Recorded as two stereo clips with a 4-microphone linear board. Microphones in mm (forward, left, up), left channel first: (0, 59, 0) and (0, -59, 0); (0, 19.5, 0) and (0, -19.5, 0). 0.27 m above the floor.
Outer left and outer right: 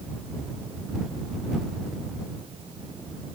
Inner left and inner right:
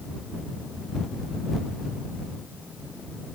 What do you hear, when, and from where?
Only background noise.